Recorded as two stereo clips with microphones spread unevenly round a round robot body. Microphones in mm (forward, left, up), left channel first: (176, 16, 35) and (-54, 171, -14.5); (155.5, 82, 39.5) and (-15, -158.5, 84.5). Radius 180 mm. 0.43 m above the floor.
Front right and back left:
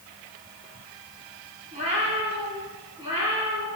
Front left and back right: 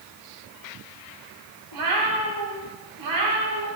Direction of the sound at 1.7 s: 145° right.